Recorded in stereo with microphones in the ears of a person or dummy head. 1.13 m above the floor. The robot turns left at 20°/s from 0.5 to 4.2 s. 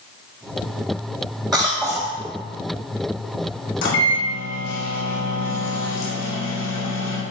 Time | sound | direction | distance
1.5 | a cough | 10° left (ahead or behind) | 0.7 m
3.8 | a microwave | 65° left (ahead or behind) | 2.5 m